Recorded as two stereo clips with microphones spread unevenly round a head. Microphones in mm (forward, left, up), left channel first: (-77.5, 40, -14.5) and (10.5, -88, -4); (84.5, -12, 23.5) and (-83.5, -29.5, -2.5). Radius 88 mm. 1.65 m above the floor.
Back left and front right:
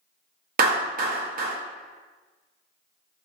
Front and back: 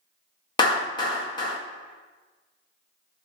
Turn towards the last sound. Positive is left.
turn(degrees=-50)